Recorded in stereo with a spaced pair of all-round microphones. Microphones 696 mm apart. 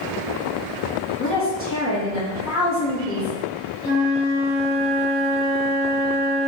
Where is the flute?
55° right (ahead or behind), 1.3 m.